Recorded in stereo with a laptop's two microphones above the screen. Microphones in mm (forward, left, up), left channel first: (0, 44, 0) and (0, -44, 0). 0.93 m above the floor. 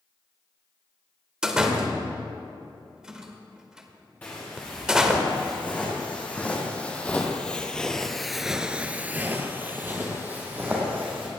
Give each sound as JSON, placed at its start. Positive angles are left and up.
{"t": 1.4, "sound": "a door slam", "side_deg": -5, "distance_m": 1.8}
{"t": 4.2, "sound": "footsteps", "side_deg": 20, "distance_m": 5.5}